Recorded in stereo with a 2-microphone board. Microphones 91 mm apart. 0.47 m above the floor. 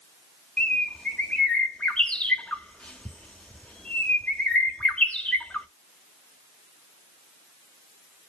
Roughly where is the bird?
Centre.